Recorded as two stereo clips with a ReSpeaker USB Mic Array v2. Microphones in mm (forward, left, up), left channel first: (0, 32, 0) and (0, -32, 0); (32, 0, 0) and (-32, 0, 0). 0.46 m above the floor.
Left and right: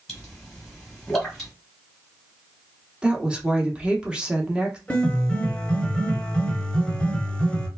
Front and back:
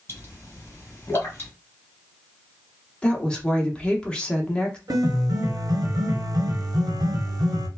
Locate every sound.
0.1 s a pop: straight ahead, 1.4 m
3.0 s a woman speaking: 45° right, 0.7 m
4.9 s a piano: 165° left, 0.9 m